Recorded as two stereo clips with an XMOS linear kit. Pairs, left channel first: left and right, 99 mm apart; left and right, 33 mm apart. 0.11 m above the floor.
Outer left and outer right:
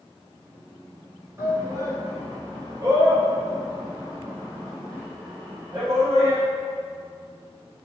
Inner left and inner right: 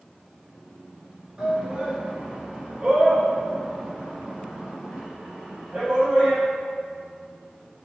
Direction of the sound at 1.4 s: 25° right (ahead or behind).